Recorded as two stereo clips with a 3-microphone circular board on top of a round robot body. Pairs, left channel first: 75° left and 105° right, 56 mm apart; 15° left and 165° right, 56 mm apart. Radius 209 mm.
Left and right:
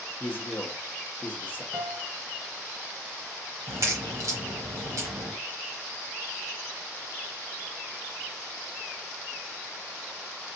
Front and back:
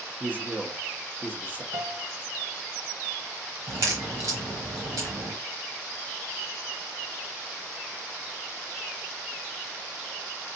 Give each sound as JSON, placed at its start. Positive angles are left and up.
{"t": 0.2, "sound": "a man speaking", "azimuth_deg": 135, "distance_m": 1.3}
{"t": 1.7, "sound": "a piano", "azimuth_deg": -170, "distance_m": 0.8}
{"t": 3.7, "sound": "a crack", "azimuth_deg": -135, "distance_m": 1.0}